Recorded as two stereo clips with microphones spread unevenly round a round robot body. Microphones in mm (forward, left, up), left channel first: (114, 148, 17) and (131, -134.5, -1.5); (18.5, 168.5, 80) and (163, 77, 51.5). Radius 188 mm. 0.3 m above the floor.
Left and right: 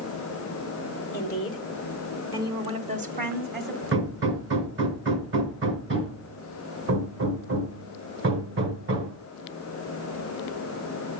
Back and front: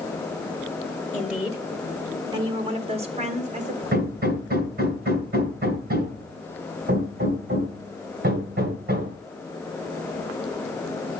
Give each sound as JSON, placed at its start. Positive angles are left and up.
{"t": 1.1, "sound": "a woman speaking", "azimuth_deg": 50, "distance_m": 1.4}
{"t": 3.9, "sound": "hammering", "azimuth_deg": -45, "distance_m": 2.5}